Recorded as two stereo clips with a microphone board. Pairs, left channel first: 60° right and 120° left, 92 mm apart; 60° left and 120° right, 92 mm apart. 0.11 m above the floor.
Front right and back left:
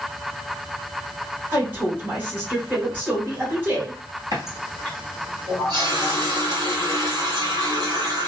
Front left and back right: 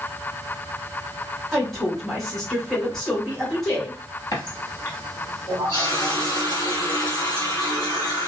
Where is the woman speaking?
140° left, 1.7 m.